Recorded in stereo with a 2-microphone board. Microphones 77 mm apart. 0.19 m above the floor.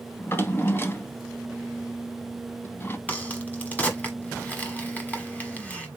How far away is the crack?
About 1.1 m.